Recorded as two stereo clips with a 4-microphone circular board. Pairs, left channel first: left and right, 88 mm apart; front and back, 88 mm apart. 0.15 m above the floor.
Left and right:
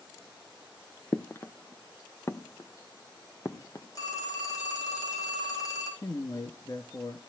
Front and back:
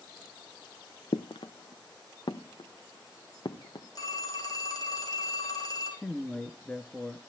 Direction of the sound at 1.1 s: 30° left.